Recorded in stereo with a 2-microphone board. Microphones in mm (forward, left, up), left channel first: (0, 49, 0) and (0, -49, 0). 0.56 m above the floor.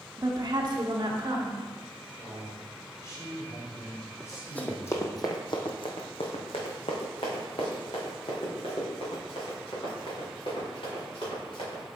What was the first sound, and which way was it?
A woman speaking, 35° right (ahead or behind).